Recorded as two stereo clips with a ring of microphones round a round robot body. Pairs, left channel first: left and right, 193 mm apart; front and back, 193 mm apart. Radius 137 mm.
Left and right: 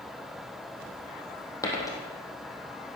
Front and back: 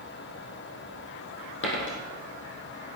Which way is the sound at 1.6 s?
15° left.